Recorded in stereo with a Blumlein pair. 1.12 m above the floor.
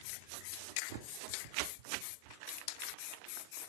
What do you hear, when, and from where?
0.9 s a bird: 45° right, 1.6 m